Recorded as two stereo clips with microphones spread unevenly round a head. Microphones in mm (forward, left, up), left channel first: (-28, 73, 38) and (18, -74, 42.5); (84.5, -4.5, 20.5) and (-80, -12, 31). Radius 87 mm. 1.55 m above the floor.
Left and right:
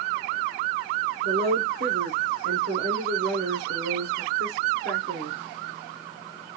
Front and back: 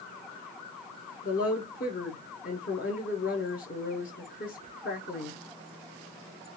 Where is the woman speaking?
40° right, 0.9 m.